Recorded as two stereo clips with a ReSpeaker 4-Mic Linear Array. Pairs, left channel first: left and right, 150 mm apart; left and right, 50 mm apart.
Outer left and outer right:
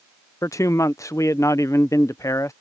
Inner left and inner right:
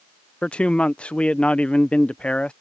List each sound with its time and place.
0.4 s a man speaking: 20° left (ahead or behind)